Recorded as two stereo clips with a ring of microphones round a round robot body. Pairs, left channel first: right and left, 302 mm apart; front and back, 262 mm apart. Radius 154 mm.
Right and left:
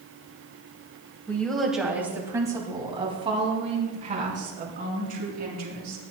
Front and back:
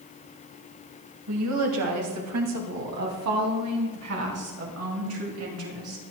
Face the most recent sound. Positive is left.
turn(degrees=150)